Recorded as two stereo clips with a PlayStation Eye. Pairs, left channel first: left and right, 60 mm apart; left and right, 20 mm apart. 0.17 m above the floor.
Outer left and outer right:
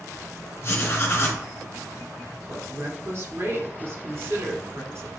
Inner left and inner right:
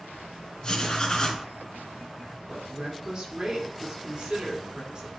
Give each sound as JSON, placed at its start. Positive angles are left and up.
{"t": 0.6, "sound": "writing", "side_deg": 45, "distance_m": 1.7}
{"t": 2.5, "sound": "a woman speaking", "side_deg": -45, "distance_m": 1.8}